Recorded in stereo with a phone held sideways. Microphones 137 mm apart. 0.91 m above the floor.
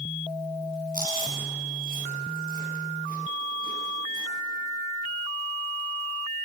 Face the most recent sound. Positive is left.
turn(degrees=-80)